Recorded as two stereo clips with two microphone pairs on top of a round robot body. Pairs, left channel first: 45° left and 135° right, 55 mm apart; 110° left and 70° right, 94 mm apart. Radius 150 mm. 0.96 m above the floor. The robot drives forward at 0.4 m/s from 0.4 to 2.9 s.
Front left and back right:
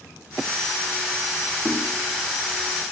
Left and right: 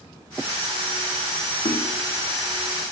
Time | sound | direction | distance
1.6 | knocking | 155° left | 1.8 m